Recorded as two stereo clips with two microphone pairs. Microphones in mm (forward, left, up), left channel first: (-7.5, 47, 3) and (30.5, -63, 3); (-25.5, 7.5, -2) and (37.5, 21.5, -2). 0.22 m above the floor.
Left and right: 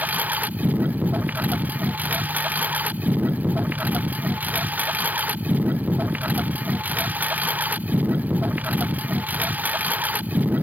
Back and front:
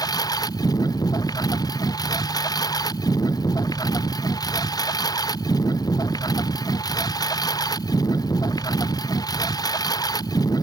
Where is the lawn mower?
145° right.